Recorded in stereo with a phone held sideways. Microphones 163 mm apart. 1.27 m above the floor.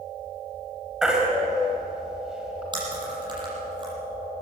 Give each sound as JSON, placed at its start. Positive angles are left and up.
{"t": 1.0, "sound": "a baby crying", "side_deg": -5, "distance_m": 4.5}
{"t": 2.7, "sound": "chewing", "side_deg": -30, "distance_m": 7.5}